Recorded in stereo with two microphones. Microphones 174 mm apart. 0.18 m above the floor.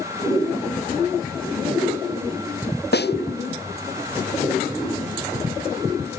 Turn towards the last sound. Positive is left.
turn(degrees=85)